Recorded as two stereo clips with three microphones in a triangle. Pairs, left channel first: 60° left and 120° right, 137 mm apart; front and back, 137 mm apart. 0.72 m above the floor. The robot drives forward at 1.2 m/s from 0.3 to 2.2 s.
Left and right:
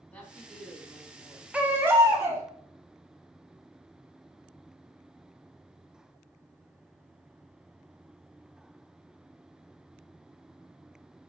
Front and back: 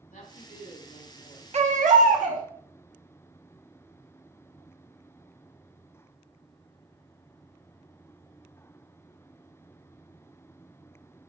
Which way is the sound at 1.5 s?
160° left.